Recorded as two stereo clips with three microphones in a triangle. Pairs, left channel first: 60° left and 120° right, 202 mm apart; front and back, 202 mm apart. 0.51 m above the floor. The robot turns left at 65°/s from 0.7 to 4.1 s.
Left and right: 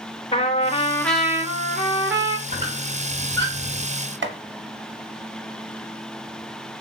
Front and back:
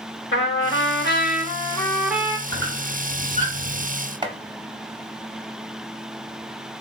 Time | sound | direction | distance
0.3 | a trumpet | straight ahead | 0.7 m
2.5 | a squeak | 165° right | 2.5 m
4.2 | chopping | 115° right | 0.5 m